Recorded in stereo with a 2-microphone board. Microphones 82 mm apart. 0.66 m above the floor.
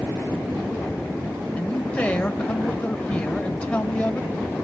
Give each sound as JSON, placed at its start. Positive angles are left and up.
{"t": 1.6, "sound": "a man speaking", "side_deg": 15, "distance_m": 3.0}